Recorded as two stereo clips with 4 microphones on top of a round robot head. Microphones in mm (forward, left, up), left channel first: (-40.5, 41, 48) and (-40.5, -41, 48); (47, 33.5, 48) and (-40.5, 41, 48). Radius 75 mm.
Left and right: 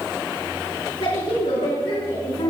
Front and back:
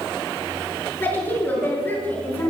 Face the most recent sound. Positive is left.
turn(degrees=65)